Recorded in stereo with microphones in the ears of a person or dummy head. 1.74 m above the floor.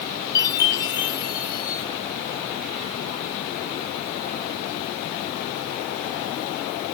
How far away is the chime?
About 2 m.